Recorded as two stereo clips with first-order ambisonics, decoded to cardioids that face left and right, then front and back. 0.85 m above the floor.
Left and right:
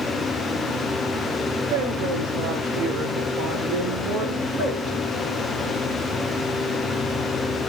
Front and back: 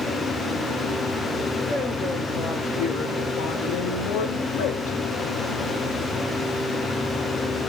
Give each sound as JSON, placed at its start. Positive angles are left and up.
{"t": 1.7, "sound": "a woman speaking", "azimuth_deg": -75, "distance_m": 4.0}